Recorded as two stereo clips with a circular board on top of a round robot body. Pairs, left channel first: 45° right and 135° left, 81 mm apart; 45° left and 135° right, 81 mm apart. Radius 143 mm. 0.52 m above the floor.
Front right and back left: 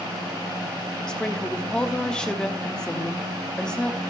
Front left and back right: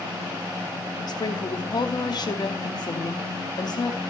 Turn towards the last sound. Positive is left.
turn(degrees=30)